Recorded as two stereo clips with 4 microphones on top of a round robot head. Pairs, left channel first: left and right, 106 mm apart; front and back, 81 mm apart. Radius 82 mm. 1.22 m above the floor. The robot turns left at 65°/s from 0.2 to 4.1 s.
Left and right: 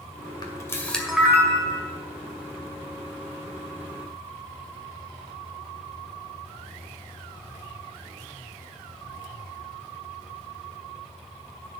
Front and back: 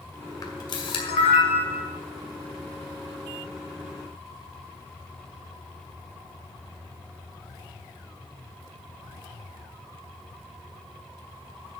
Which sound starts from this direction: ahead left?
A camera shutter, at 0.4 s.